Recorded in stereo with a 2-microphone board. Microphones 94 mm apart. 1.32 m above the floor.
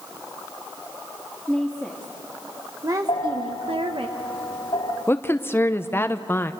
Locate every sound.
1.5 s a woman speaking: 5° right (ahead or behind), 3 m; by 4.1 s 70° right (ahead or behind), 1.4 m
3.1 s a bell: 70° left (ahead or behind), 2.5 m
5.1 s a woman speaking: 25° left (ahead or behind), 0.8 m